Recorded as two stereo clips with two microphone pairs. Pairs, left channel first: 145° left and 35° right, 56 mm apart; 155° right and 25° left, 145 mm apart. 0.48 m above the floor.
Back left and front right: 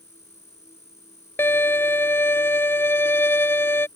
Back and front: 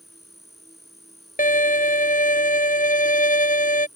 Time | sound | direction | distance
0.0 | an insect | 115° left | ?
1.4 | a violin | 170° right | ?